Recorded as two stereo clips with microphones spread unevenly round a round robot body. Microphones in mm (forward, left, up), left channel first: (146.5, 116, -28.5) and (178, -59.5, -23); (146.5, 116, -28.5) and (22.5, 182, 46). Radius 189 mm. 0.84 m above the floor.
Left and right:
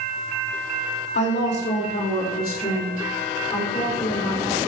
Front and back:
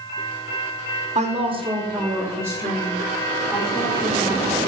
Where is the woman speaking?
100° left, 2 m; by 4.6 s 45° left, 5 m.